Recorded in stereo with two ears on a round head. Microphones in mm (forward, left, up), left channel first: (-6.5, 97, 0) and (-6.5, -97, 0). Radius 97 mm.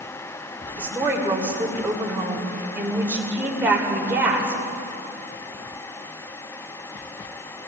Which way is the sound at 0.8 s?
10° right (ahead or behind).